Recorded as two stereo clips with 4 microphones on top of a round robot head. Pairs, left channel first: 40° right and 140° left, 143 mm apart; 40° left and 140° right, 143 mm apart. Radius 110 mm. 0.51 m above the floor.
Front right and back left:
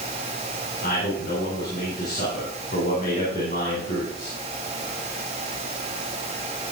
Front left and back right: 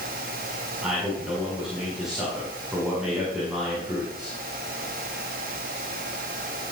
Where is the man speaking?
50° right, 9 m.